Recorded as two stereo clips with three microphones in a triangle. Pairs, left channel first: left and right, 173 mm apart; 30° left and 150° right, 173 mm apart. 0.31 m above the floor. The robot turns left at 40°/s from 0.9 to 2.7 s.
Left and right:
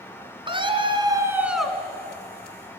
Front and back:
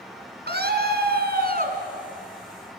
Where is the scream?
150° right, 3 m; by 1.8 s 175° left, 3 m.